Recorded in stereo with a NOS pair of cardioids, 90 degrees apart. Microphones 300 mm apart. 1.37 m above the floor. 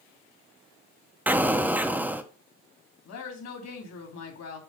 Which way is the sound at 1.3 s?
5° right.